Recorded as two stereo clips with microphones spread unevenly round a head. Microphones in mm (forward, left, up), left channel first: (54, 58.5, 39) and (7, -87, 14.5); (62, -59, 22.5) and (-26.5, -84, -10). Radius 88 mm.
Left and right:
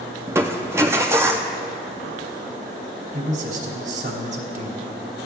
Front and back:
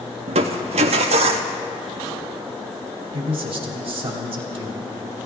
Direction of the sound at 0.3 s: 170° left.